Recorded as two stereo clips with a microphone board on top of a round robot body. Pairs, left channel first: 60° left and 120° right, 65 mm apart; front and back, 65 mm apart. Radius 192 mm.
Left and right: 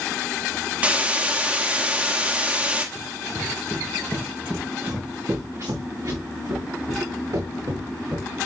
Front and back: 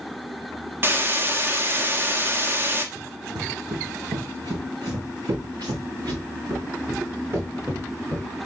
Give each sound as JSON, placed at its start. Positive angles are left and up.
{"t": 0.8, "sound": "a hiss", "azimuth_deg": -170, "distance_m": 1.5}
{"t": 3.0, "sound": "running footsteps", "azimuth_deg": 140, "distance_m": 1.9}